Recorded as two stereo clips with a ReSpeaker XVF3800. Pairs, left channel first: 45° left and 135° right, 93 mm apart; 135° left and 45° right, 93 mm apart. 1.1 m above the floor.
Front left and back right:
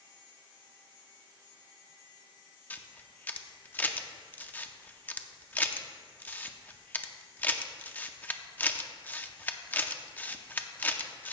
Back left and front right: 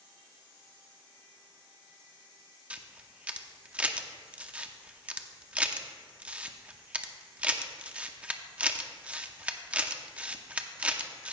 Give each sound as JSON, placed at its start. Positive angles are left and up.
{"t": 2.7, "sound": "a camera shutter", "azimuth_deg": 10, "distance_m": 0.6}